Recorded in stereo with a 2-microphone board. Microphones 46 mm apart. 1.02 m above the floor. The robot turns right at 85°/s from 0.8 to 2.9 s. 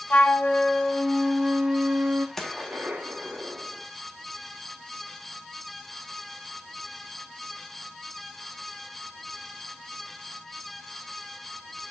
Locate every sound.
0.1 s a flute: 125° left, 0.7 m; by 2.3 s 110° right, 0.7 m
2.4 s a gunshot: 170° left, 1.4 m; by 3.8 s 140° right, 1.4 m